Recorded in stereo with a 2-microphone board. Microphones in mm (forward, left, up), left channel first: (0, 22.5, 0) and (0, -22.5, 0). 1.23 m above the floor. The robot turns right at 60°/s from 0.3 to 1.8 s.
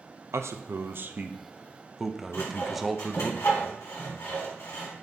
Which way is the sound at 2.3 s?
80° left.